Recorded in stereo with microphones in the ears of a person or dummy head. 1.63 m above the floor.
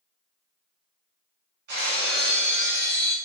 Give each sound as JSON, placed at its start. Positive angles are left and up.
{"t": 1.7, "sound": "breaking glass", "side_deg": -55, "distance_m": 1.4}